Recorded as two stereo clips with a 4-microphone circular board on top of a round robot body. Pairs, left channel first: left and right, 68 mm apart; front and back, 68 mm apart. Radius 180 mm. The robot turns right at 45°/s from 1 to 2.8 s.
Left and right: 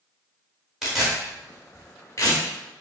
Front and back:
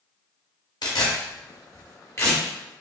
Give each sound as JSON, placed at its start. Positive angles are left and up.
{"t": 0.8, "sound": "tearing paper", "azimuth_deg": -5, "distance_m": 1.7}